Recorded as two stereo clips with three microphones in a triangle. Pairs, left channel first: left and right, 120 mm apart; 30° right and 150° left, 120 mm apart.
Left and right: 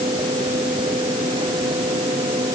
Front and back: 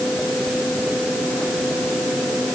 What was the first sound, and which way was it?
Only background noise.